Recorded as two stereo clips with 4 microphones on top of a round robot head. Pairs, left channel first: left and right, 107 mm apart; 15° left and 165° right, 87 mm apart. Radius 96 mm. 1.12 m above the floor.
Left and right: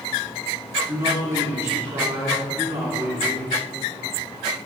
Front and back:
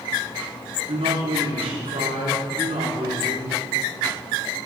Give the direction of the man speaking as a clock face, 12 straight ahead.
5 o'clock.